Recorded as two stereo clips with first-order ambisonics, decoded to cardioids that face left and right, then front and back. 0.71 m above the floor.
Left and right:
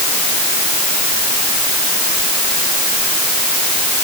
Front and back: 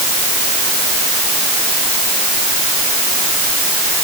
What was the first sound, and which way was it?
Only background noise.